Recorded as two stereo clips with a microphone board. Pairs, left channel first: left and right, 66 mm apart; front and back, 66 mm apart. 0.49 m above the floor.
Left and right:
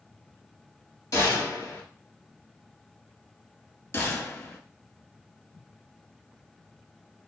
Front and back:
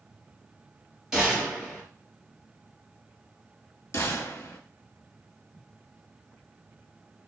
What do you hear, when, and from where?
1.1 s a gunshot: 95° left, 3 m
3.9 s a gunshot: 45° left, 1.0 m